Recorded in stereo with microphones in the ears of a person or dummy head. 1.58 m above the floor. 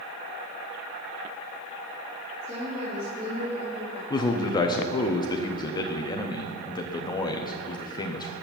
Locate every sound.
2.4 s a woman speaking: 35° right (ahead or behind), 3 m
4.1 s a man speaking: 25° left (ahead or behind), 0.5 m